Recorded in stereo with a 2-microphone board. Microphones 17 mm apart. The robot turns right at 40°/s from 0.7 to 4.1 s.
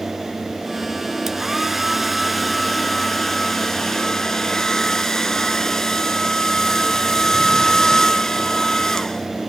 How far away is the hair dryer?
About 1.0 m.